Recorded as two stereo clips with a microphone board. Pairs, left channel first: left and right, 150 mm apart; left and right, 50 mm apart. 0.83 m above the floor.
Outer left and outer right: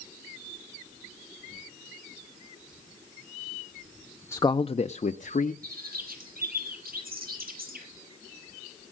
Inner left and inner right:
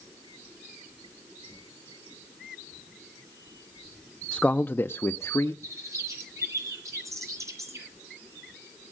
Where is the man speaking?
15° left (ahead or behind), 0.6 m; by 5.5 s 70° left (ahead or behind), 1.2 m.